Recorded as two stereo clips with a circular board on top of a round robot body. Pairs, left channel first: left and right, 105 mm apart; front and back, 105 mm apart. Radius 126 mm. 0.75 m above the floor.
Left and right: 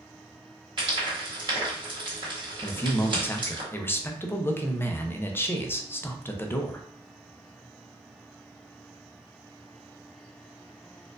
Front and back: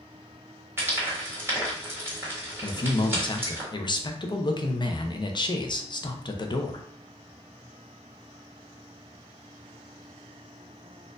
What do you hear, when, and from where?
0.8 s frying: 115° right, 1.9 m
2.6 s a man speaking: 30° left, 0.7 m